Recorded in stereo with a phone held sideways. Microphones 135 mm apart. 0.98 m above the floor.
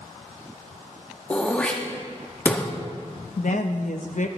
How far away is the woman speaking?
About 0.7 m.